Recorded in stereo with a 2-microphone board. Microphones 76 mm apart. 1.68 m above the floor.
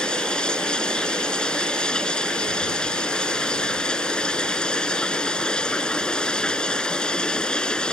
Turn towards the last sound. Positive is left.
turn(degrees=10)  # may be behind; listen again after turning